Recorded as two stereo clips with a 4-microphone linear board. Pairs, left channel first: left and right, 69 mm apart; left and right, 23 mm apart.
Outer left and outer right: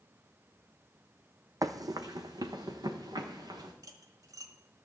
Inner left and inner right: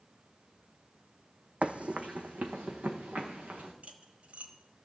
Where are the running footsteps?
60° right (ahead or behind), 0.7 m; by 3.7 s 75° right (ahead or behind), 2 m.